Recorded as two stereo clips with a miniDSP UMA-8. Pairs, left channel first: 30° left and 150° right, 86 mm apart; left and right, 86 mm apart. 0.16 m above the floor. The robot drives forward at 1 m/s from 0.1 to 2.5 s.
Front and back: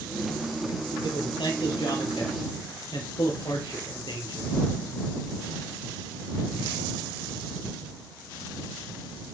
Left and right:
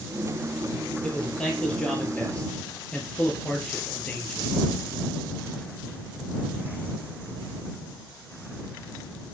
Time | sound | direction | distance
1.0 | a man speaking | 10° left | 5 m